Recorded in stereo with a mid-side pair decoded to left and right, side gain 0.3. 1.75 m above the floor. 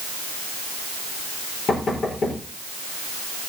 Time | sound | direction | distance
1.7 | knocking | 70° left | 4.5 m